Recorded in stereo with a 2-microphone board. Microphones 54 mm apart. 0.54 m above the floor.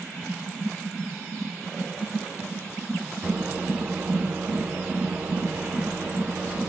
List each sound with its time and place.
3.2 s a microwave: 25° right (ahead or behind), 0.5 m